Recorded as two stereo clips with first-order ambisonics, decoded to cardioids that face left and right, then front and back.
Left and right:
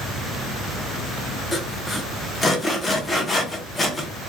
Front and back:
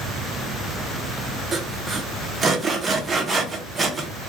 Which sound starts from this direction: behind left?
Sawing, at 1.5 s.